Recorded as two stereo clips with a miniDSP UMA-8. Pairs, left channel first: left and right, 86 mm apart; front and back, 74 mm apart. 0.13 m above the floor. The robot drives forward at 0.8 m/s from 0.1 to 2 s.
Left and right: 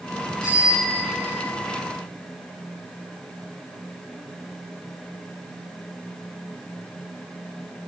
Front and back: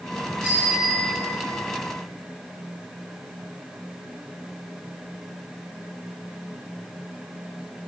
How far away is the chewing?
I don't hear chewing.